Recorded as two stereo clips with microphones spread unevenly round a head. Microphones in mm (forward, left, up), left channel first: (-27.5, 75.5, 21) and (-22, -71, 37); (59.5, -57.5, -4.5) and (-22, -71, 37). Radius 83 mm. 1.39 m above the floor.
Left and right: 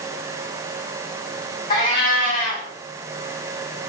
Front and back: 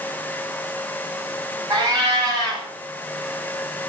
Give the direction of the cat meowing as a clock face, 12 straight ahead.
7 o'clock.